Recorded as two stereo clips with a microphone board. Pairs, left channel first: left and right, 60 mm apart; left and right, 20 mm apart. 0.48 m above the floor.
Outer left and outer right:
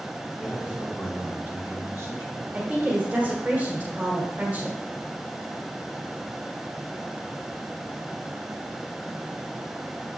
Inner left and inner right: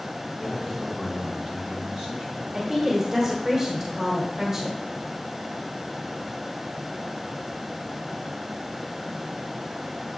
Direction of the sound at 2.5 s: 25° right (ahead or behind).